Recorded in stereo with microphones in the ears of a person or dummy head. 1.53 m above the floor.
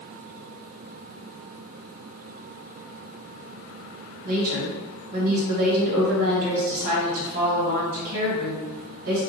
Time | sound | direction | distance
4.2 | a woman speaking | 50° right (ahead or behind) | 1.5 m